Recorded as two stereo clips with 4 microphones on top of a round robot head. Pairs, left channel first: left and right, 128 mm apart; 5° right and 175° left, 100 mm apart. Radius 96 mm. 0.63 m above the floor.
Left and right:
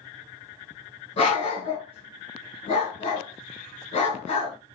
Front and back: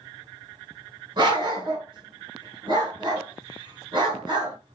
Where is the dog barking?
130° left, 1.8 m.